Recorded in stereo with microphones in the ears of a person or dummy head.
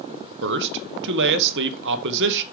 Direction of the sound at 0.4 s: 55° right (ahead or behind).